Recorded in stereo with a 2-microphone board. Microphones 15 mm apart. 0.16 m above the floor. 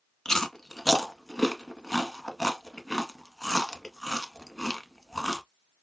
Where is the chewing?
30° left (ahead or behind), 0.7 m.